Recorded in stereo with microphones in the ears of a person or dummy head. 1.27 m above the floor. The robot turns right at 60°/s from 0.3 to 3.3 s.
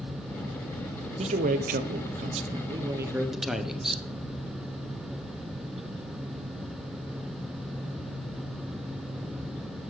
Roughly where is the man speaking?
Behind right.